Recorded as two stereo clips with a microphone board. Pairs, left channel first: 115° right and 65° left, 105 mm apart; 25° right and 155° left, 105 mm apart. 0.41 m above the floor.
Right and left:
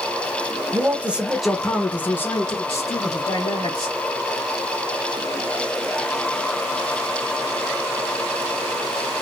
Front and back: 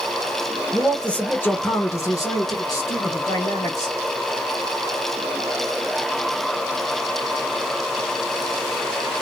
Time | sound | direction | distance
0.7 | a man speaking | 60° left | 1.0 m